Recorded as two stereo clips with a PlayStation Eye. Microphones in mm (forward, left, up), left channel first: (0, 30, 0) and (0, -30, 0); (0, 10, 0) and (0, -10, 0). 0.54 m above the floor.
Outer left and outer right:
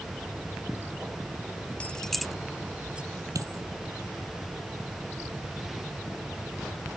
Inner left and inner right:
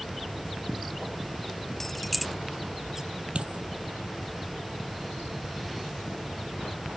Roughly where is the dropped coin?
Right.